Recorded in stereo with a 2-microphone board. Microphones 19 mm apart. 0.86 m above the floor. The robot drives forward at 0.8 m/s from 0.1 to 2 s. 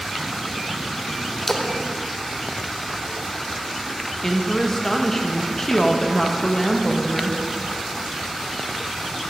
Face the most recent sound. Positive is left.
turn(degrees=25)  # may be behind; listen again after turning